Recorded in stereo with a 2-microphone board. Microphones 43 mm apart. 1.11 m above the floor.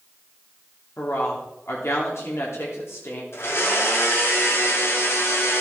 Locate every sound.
1.0 s a woman speaking: 85° left, 2.5 m
3.3 s a blender: 75° left (ahead or behind), 2 m